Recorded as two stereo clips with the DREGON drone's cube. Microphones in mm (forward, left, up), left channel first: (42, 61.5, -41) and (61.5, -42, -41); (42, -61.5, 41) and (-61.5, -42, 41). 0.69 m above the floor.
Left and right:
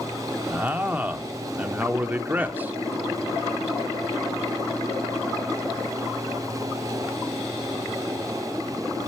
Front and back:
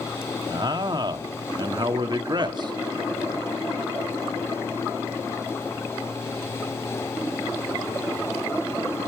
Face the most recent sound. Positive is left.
turn(degrees=-150)